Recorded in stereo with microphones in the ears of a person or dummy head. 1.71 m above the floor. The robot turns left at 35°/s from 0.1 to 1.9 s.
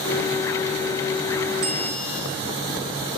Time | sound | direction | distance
1.6 | a bell | 20° right (ahead or behind) | 1.3 m